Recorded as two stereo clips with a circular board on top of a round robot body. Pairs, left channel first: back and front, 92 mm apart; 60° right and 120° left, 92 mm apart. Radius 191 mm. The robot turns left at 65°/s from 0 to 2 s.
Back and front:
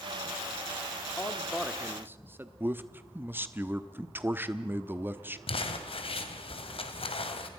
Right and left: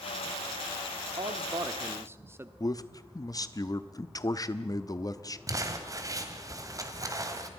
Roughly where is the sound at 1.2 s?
Behind left.